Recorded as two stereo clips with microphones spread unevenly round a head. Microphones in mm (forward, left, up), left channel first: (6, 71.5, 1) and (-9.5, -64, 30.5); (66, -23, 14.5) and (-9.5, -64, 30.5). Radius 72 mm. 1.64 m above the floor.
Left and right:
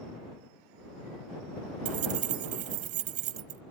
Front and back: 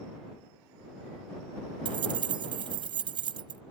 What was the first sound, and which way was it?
Keys jangling, 130° right.